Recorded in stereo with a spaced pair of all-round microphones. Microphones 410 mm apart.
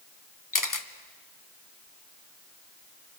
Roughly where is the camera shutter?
Left.